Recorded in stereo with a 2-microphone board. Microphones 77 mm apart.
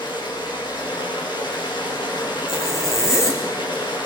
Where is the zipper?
40° left (ahead or behind), 3 m.